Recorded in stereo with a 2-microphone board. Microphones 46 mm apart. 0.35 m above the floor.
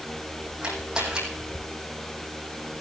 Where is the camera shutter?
15° right (ahead or behind), 5 m.